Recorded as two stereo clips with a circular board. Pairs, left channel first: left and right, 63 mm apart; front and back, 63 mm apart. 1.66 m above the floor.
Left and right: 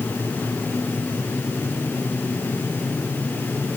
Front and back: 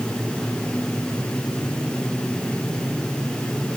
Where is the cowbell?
No cowbell in this recording.